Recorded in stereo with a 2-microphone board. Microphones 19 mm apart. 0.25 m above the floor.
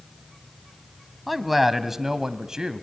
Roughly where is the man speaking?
Centre.